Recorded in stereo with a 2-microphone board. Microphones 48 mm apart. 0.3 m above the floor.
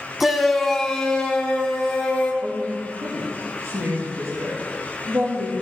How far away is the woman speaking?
About 6 m.